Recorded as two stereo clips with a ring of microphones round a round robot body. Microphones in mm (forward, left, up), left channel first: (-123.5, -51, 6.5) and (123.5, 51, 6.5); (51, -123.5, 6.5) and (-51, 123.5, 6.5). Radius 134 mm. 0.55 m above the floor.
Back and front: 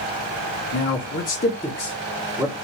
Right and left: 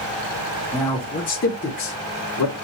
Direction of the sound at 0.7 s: 140° right.